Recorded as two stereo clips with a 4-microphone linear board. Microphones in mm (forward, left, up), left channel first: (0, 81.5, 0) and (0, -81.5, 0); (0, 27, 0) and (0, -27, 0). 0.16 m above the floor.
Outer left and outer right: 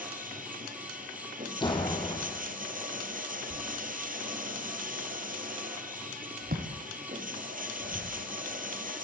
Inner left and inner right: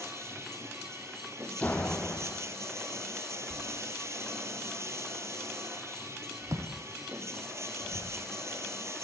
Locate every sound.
0.0 s running water: 55° right (ahead or behind), 4 m
1.6 s a door slam: 30° left (ahead or behind), 4.5 m
3.5 s a thud: 70° right (ahead or behind), 4 m